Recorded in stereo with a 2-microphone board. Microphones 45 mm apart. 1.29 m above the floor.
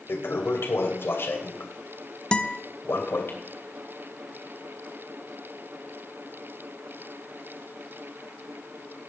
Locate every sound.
0.1 s a toilet flushing: 60° left (ahead or behind), 2.5 m
2.3 s a guitar: 20° left (ahead or behind), 0.8 m